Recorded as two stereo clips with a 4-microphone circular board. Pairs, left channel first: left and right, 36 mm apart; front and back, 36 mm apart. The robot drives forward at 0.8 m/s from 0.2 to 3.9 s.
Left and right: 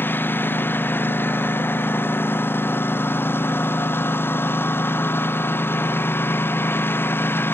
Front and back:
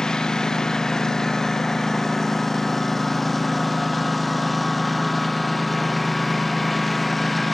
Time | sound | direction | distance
0.0 | a lawn mower | 70° left | ?